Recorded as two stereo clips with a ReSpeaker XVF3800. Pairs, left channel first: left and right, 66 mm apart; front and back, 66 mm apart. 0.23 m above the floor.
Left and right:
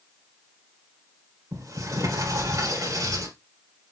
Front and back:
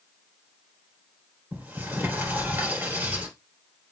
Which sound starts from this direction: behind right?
A sliding door, at 1.5 s.